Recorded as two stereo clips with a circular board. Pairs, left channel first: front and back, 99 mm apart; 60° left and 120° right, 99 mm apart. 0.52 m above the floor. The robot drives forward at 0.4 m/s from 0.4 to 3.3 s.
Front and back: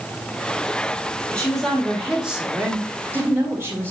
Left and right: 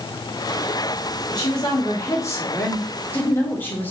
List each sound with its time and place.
1.3 s a woman speaking: 75° left, 1.3 m; by 3.9 s 125° left, 1.4 m